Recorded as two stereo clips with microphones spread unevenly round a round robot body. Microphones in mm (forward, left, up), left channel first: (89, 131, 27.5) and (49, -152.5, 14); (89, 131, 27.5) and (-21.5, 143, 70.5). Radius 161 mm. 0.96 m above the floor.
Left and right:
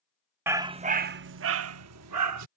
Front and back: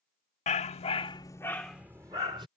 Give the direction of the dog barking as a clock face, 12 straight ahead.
1 o'clock.